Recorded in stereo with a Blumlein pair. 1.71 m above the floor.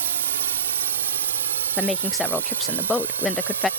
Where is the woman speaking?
10° left.